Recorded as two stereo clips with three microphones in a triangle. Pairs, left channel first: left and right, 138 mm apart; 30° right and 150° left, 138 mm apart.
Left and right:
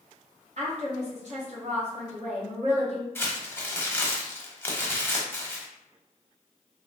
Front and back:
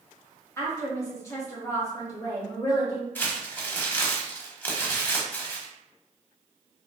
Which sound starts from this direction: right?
A woman speaking, at 0.6 s.